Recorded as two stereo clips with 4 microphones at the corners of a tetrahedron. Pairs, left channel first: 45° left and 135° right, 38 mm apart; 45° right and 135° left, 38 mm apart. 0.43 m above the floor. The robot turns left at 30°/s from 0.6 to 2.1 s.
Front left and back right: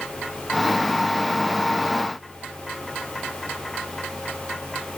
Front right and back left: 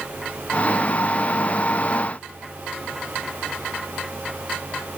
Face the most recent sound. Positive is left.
No sound to turn to.